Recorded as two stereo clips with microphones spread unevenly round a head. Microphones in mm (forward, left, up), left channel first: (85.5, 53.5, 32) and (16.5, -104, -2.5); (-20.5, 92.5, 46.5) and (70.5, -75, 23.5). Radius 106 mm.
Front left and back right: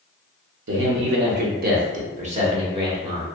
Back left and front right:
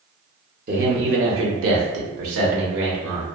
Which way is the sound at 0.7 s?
115° right.